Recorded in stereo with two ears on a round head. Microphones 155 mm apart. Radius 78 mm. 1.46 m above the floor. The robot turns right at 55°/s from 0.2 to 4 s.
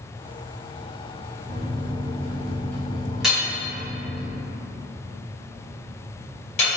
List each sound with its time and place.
1.4 s a microwave: 60° right, 0.9 m; by 4.2 s 80° left, 0.9 m
3.2 s hammering: 5° right (ahead or behind), 1.3 m; by 6.8 s 40° left (ahead or behind), 1.3 m